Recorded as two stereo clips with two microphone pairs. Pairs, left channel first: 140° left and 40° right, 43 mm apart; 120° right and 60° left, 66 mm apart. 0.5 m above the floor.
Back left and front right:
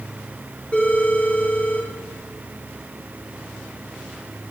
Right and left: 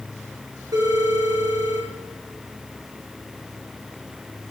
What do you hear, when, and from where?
0.7 s a phone ringing: 80° left, 6 m